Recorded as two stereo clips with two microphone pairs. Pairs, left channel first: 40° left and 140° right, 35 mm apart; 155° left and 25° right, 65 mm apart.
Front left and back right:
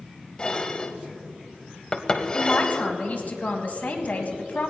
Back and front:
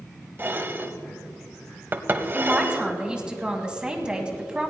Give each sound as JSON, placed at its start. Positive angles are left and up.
{"t": 0.4, "sound": "dishes clattering", "azimuth_deg": -10, "distance_m": 0.8}
{"t": 2.3, "sound": "a man speaking", "azimuth_deg": 45, "distance_m": 1.8}